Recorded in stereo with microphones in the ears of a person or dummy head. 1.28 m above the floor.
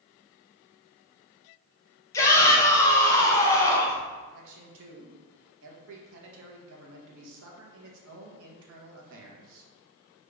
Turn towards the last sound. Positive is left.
turn(degrees=-70)  # may be behind; listen again after turning